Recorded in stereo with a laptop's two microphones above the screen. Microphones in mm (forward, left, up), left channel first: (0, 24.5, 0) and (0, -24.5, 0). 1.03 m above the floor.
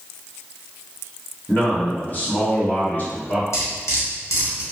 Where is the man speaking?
35° left (ahead or behind), 1.0 m.